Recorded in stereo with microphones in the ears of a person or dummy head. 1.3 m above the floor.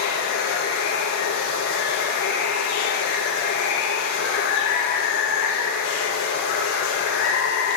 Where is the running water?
65° left (ahead or behind), 1.3 m.